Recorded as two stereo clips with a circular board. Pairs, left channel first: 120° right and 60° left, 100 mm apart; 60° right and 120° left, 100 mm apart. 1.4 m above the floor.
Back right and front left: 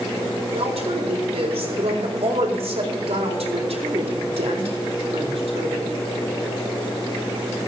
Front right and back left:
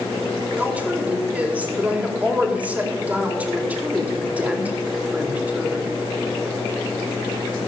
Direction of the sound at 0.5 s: 45° left.